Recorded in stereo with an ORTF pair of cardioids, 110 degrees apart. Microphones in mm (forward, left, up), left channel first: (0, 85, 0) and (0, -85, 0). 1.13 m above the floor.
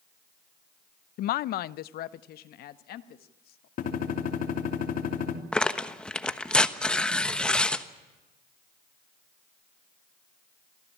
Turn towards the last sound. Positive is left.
turn(degrees=5)